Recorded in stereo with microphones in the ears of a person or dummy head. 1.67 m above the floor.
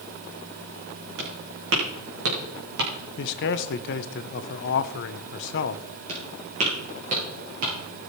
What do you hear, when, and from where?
1.2 s footsteps: 60° right (ahead or behind), 5 m; by 2.9 s 55° right (ahead or behind), 4.5 m
3.2 s a man speaking: 60° left (ahead or behind), 0.9 m
6.1 s footsteps: 35° right (ahead or behind), 6.5 m; by 7.7 s 40° right (ahead or behind), 7.5 m